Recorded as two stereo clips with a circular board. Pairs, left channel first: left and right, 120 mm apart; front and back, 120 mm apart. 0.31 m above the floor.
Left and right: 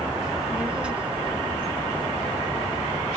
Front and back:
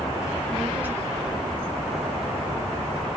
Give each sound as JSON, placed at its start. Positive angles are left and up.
{"t": 0.2, "sound": "a child speaking", "azimuth_deg": -10, "distance_m": 0.7}